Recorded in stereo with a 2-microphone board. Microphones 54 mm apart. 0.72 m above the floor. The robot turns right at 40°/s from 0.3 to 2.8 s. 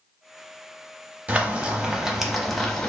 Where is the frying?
45° right, 0.6 m; by 2.9 s 15° left, 0.6 m.